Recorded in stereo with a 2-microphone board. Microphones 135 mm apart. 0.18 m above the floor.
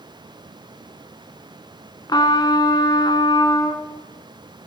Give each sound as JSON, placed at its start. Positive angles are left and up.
{"t": 2.1, "sound": "a trumpet", "side_deg": 35, "distance_m": 1.3}